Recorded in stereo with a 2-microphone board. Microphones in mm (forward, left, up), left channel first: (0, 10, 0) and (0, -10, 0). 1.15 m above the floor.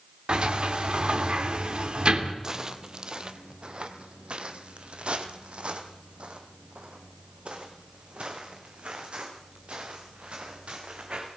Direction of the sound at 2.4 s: 30° right (ahead or behind).